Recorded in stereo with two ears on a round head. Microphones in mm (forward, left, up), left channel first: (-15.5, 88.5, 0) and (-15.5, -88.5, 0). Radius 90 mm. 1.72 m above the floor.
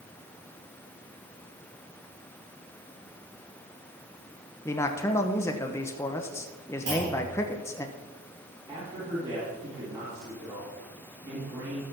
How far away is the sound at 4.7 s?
About 0.9 m.